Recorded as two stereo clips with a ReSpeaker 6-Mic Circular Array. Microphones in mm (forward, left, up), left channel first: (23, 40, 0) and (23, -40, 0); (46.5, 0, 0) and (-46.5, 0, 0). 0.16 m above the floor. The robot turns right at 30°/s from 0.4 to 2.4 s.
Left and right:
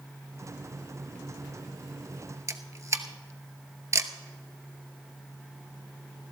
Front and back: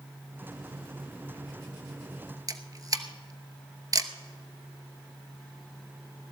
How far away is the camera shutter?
About 0.9 m.